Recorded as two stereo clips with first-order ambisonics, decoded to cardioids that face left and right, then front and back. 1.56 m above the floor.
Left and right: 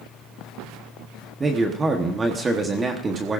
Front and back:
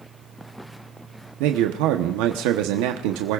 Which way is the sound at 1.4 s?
165° right.